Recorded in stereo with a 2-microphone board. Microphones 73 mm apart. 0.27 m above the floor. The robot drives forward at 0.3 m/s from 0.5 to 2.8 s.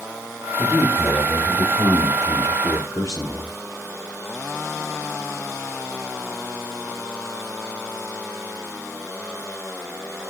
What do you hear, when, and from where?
0.6 s a man speaking: 55° left (ahead or behind), 4.5 m; by 3.5 s 50° left (ahead or behind), 5 m